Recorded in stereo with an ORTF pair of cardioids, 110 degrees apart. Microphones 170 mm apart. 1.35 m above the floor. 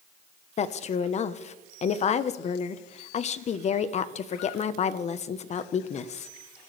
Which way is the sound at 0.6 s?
40° left.